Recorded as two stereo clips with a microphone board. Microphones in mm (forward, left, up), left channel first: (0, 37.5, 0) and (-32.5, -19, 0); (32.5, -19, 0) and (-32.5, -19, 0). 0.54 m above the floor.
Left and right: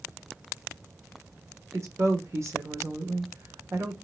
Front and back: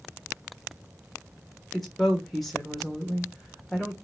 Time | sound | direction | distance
1.7 | a woman speaking | 90° right | 1.3 m